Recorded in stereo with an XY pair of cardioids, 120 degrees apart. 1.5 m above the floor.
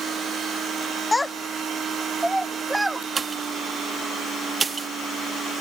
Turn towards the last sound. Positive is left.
turn(degrees=-35)